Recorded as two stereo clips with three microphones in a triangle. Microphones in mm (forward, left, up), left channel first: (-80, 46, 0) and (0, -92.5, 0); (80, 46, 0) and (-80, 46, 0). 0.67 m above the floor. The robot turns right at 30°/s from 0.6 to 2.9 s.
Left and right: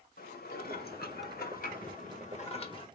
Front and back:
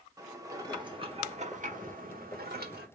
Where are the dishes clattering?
110° left, 1.0 m; by 2.9 s straight behind, 1.0 m.